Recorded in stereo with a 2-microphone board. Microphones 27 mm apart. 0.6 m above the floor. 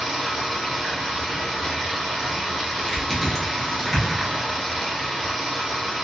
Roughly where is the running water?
Centre.